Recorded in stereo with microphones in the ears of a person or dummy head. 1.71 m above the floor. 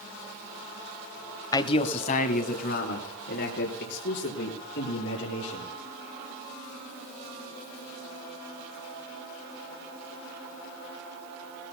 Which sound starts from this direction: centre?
A man speaking, at 1.5 s.